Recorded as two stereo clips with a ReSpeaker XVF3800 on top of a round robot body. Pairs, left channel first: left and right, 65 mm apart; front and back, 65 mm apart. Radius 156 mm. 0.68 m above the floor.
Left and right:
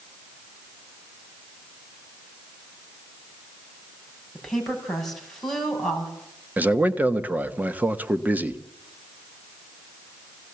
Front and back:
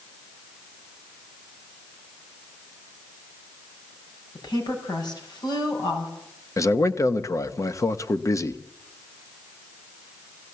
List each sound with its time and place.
4.3 s a woman speaking: 5° left, 6.5 m
6.6 s a man speaking: 30° right, 1.7 m